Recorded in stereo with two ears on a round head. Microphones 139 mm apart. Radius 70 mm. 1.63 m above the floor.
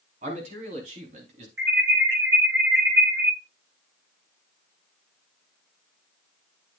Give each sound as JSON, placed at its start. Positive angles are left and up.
{"t": 0.2, "sound": "a man speaking", "side_deg": -45, "distance_m": 4.5}
{"t": 1.6, "sound": "an alarm", "side_deg": -85, "distance_m": 6.5}